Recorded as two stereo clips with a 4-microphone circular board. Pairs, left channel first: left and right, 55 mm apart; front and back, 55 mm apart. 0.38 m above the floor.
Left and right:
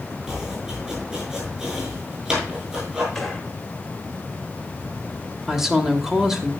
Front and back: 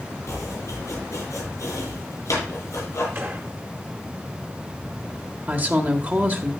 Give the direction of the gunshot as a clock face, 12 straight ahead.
6 o'clock.